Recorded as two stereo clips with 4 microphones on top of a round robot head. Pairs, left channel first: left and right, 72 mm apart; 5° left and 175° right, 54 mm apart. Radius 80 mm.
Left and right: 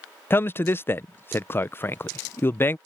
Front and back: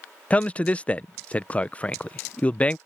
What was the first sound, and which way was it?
A man speaking, 55° left.